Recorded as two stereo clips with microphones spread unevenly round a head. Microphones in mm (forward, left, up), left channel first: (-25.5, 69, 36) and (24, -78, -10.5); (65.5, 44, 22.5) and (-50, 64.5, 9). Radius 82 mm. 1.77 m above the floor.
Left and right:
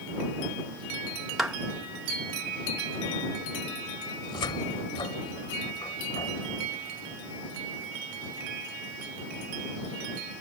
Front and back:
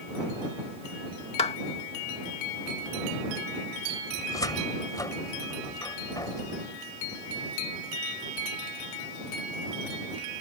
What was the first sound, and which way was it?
A clap, 20° left.